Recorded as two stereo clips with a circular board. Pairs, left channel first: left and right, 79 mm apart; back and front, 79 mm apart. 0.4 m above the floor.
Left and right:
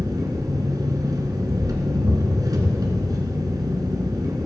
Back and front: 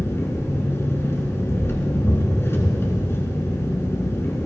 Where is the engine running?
125° right, 1.6 m.